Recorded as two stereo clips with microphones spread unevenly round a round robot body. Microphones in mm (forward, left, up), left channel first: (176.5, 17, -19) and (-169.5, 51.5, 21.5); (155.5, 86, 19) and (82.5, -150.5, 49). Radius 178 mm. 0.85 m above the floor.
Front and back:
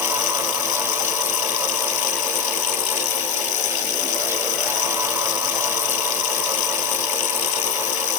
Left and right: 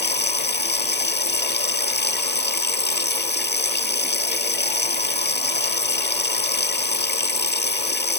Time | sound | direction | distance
0.0 | running water | 25° left | ?